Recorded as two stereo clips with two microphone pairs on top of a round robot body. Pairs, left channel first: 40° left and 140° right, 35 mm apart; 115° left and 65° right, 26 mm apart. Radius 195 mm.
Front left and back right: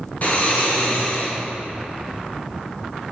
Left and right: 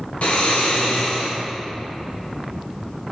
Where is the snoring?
90° left, 2.5 m.